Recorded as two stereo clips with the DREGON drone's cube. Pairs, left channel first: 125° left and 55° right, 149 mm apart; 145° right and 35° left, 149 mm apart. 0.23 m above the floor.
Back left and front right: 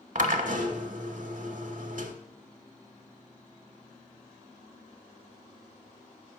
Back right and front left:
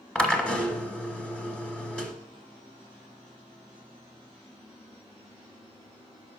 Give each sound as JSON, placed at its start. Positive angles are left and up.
{"t": 0.1, "sound": "a drill", "azimuth_deg": -65, "distance_m": 0.7}